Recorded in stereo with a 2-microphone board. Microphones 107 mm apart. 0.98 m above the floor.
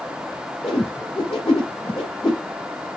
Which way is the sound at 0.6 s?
70° left (ahead or behind).